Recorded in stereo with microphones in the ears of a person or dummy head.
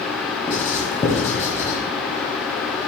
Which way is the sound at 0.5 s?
15° left (ahead or behind).